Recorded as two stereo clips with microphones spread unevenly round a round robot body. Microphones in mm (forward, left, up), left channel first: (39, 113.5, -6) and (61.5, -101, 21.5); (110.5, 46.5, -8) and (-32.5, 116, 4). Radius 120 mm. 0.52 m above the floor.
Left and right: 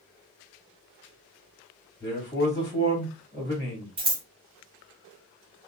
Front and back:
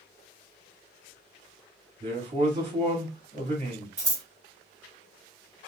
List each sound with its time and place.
2.0 s a man speaking: 140° left, 1.4 m
4.0 s scissors: 135° right, 0.8 m